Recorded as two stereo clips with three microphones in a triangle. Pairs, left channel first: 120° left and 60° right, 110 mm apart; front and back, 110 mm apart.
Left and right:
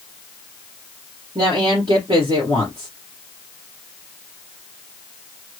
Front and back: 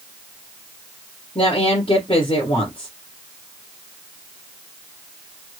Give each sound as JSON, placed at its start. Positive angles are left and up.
{"t": 1.4, "sound": "a woman speaking", "azimuth_deg": -20, "distance_m": 2.5}